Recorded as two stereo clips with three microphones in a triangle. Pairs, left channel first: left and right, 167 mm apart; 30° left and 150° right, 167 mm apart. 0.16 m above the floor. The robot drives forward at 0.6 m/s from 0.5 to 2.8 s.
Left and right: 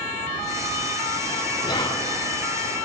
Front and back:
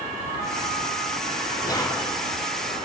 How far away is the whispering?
About 1.2 m.